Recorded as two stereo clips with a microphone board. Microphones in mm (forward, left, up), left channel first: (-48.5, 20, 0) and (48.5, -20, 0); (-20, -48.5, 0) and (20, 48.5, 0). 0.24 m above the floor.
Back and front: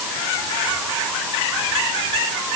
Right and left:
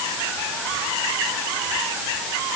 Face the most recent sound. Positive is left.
No sound to turn to.